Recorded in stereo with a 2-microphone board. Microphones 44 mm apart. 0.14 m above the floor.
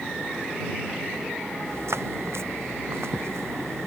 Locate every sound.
1.6 s footsteps: 75° right (ahead or behind); by 3.9 s 80° right